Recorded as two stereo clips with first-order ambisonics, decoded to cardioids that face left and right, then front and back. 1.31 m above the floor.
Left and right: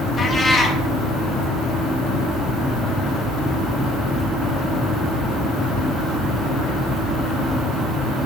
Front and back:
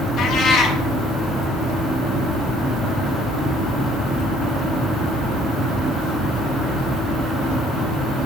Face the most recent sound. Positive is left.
turn(degrees=30)